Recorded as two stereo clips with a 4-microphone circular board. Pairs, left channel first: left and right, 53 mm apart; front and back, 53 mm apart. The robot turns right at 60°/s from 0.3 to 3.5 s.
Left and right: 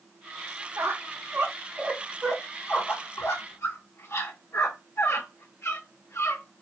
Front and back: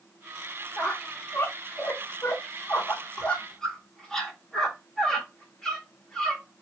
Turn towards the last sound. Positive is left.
turn(degrees=75)